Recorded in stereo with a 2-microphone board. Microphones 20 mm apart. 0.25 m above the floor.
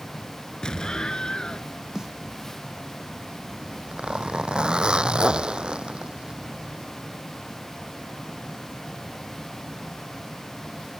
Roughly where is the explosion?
Left.